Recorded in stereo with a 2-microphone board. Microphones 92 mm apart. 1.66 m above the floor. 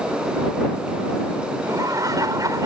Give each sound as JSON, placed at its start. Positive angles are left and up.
{"t": 1.6, "sound": "laughter", "side_deg": -40}